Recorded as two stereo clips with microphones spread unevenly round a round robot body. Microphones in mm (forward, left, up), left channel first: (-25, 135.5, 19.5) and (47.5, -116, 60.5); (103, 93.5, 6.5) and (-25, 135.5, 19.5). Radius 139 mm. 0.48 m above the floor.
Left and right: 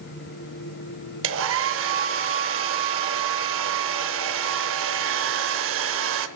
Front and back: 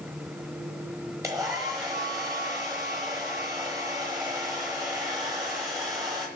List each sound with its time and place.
1.2 s a hair dryer: 120° right, 0.9 m